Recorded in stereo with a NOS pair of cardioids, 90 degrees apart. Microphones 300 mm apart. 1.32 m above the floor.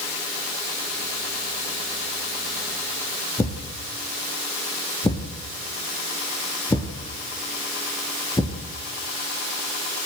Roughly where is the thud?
Ahead.